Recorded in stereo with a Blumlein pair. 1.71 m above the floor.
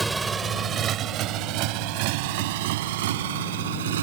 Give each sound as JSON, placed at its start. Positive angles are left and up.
{"t": 0.0, "sound": "a motorcycle", "azimuth_deg": -5}